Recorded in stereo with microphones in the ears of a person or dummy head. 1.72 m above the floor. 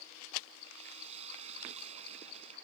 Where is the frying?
35° right (ahead or behind).